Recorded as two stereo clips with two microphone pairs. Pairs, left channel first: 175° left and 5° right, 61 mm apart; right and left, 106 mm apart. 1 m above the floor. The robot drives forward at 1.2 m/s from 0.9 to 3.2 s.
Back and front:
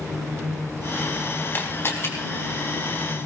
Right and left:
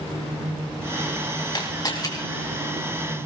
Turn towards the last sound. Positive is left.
turn(degrees=-155)